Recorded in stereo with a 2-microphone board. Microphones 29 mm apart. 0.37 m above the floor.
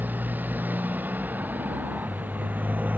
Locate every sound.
0.0 s a motorcycle: 85° right; by 3.0 s 70° right (ahead or behind)